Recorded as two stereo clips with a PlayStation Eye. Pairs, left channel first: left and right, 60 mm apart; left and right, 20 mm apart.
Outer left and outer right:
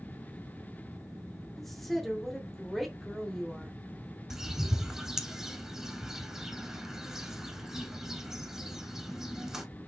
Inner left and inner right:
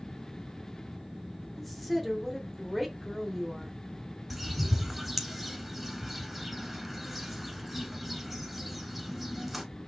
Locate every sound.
1.6 s a woman speaking: 5° left (ahead or behind), 0.9 m
4.3 s a bird: 10° right (ahead or behind), 0.8 m